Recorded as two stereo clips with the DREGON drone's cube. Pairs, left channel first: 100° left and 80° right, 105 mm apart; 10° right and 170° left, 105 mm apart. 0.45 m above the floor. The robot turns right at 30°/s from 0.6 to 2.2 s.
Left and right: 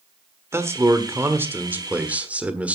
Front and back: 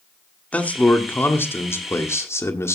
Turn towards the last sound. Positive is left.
turn(degrees=-20)